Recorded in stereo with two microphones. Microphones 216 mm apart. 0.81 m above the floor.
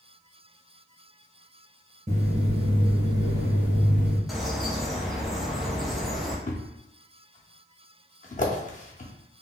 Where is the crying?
No crying in this recording.